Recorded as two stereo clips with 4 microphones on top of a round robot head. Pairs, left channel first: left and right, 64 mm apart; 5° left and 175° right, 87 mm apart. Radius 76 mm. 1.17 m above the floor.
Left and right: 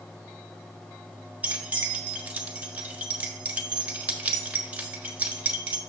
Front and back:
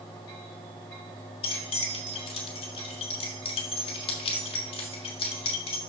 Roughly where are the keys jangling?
Ahead right.